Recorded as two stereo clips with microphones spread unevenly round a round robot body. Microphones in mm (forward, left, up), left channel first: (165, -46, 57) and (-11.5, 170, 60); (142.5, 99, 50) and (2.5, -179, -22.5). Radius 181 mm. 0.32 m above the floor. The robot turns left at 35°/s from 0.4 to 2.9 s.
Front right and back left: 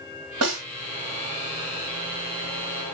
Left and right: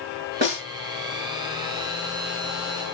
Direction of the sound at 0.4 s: Straight behind.